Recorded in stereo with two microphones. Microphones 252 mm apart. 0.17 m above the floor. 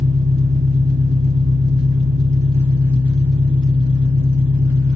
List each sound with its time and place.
0.0 s an engine running: 60° right (ahead or behind), 2 m